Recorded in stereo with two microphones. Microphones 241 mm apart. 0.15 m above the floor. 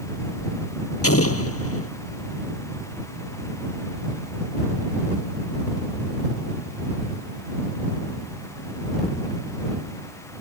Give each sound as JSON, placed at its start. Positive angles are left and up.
{"t": 1.0, "sound": "an explosion", "side_deg": 70}